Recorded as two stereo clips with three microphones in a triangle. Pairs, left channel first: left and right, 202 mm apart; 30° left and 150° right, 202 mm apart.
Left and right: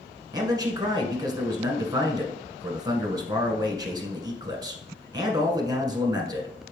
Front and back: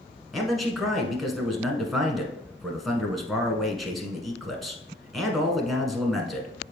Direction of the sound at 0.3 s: 60° right.